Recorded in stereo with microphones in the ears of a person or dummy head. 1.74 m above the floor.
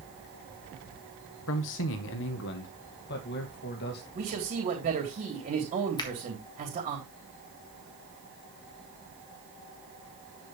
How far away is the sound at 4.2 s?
About 3.5 m.